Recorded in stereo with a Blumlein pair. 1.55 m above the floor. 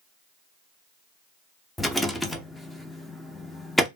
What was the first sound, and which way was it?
A rattle, 5° left.